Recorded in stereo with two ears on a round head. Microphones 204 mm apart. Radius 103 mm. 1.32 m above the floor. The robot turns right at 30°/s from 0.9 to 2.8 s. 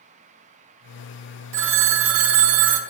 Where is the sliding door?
No sliding door in this recording.